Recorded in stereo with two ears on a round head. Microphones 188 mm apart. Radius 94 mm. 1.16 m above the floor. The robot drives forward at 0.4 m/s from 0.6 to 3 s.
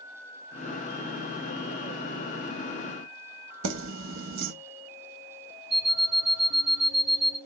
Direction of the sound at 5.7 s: Centre (ahead or behind).